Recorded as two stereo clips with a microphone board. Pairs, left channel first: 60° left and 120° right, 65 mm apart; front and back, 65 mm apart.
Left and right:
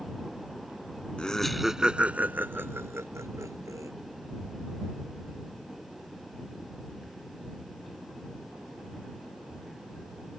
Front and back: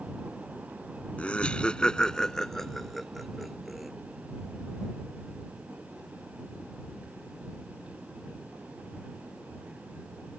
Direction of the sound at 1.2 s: 15° left.